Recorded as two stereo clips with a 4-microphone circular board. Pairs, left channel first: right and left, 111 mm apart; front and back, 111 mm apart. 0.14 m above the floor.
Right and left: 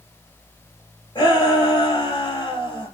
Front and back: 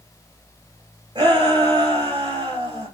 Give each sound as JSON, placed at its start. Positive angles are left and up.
{"t": 1.1, "sound": "a shout", "azimuth_deg": -135, "distance_m": 4.5}